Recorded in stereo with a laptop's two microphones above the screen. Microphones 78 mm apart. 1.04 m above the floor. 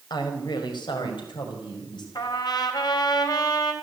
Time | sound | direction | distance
0.1 | a woman speaking | 70° left (ahead or behind) | 4.5 m
2.1 | a trumpet | 65° left (ahead or behind) | 3 m